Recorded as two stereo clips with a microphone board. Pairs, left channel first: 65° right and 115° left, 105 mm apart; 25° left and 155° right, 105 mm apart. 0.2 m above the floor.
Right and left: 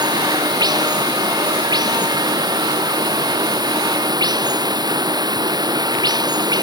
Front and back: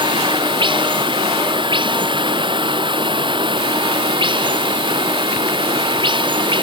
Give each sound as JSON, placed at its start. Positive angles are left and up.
{"t": 0.0, "sound": "running water", "azimuth_deg": 165}